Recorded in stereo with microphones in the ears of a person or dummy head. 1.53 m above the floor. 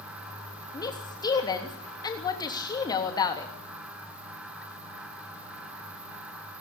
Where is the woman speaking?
25° left (ahead or behind), 3 m.